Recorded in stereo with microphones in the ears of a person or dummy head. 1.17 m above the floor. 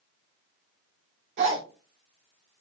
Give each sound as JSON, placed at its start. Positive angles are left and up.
{"t": 1.4, "sound": "a zipper", "side_deg": -65, "distance_m": 1.7}